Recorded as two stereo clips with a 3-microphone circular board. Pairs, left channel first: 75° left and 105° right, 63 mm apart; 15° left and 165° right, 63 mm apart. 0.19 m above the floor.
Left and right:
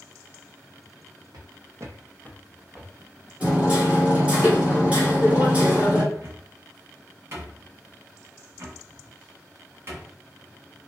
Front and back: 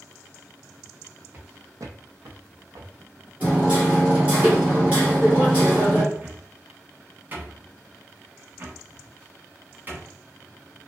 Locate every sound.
1.3 s footsteps: 110° right, 0.6 m; by 3.3 s 150° left, 0.9 m
3.4 s hammering: 150° right, 1.3 m
6.1 s a cupboard door: 125° right, 0.8 m